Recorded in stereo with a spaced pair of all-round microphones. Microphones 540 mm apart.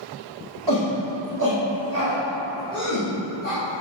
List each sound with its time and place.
0.7 s a shout: 45° right (ahead or behind), 1.6 m; by 3.6 s 20° right (ahead or behind), 4.5 m